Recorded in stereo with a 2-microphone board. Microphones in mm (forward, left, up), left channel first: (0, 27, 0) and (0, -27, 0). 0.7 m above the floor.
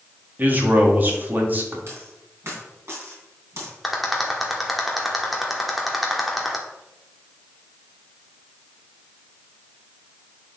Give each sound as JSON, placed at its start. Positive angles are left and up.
{"t": 0.4, "sound": "a man speaking", "side_deg": -35, "distance_m": 1.4}
{"t": 1.9, "sound": "a dropped coin", "side_deg": -55, "distance_m": 3.0}
{"t": 3.8, "sound": "a rattle", "side_deg": 0, "distance_m": 1.2}